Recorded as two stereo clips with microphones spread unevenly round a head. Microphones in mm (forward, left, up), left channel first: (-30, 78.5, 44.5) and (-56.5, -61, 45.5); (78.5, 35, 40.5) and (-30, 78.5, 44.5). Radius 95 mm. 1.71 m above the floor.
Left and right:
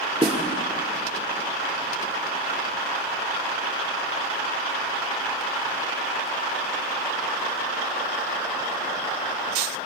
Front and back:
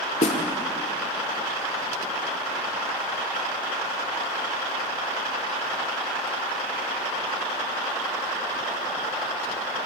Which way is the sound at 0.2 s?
40° right.